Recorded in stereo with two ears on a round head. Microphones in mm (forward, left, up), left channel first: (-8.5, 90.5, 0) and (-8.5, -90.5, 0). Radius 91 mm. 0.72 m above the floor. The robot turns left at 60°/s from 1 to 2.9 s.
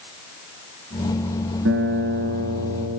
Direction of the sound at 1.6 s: 95° right.